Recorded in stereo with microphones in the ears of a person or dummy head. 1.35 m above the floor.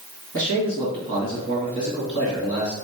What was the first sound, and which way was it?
A man speaking, 40° right (ahead or behind).